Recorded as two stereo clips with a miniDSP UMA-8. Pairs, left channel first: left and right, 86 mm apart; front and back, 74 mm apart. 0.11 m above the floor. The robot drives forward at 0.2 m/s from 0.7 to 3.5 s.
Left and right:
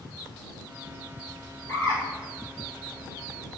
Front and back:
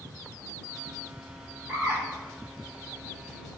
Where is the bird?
130° left, 1.4 m; by 2.0 s 135° left, 1.4 m.